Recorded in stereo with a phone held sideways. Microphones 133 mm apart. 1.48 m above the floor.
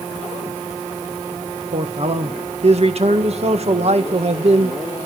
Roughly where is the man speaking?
Right.